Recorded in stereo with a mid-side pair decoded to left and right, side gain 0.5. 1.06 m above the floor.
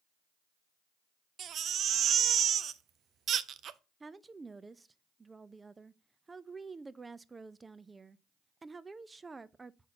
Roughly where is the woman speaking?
Ahead right.